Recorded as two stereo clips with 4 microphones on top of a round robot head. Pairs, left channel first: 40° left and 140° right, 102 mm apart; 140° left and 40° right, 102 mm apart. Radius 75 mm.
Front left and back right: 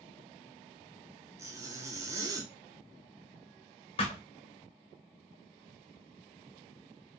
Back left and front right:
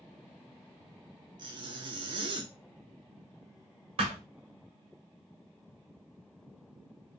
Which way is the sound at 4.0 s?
Straight ahead.